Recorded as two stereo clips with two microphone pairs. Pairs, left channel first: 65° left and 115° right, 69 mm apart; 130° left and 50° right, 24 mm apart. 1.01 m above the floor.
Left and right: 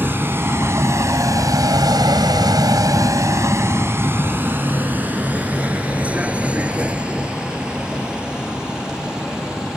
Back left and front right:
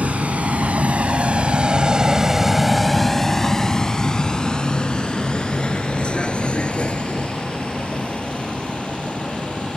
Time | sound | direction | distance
0.0 | a vehicle | 55° right | ?